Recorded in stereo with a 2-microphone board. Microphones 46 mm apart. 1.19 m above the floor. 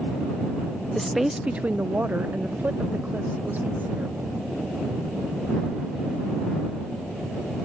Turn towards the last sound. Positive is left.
turn(degrees=-45)  # may be behind; listen again after turning